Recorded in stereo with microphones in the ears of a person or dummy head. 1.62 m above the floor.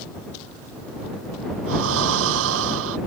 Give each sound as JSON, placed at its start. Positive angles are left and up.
{"t": 1.7, "sound": "breathing", "side_deg": -75}